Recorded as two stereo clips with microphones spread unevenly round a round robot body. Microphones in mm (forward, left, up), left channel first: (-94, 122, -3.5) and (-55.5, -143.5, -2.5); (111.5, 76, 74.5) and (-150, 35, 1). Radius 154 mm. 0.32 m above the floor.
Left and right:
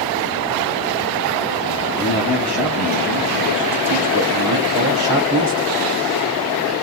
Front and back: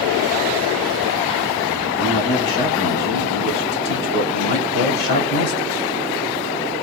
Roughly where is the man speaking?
Ahead.